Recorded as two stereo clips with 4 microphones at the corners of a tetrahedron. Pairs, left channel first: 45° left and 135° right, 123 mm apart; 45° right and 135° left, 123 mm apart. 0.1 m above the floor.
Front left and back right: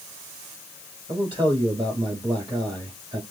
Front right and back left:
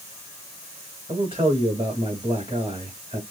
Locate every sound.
1.1 s a man speaking: 175° left, 3.5 m